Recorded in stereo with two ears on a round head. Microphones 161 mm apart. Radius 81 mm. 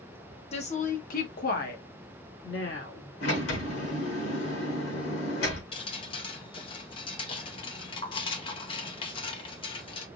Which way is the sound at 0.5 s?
35° left (ahead or behind).